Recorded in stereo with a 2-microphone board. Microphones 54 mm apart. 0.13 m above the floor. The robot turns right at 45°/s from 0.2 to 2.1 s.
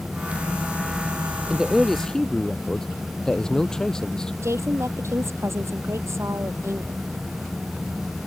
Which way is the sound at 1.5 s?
15° right (ahead or behind).